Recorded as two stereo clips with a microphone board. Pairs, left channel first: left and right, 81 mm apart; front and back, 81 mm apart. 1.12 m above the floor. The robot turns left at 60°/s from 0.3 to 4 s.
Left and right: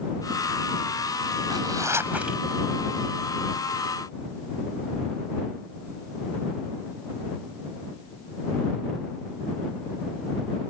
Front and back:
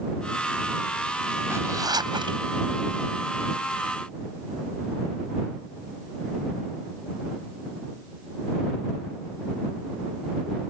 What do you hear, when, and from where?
1.5 s a zipper: 120° right; by 2.4 s straight behind